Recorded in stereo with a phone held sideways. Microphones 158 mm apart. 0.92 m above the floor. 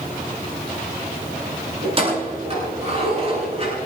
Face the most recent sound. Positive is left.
turn(degrees=-40)  # may be behind; listen again after turning